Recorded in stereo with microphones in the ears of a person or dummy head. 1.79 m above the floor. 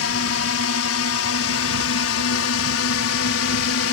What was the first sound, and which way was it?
A drone, 75° left (ahead or behind).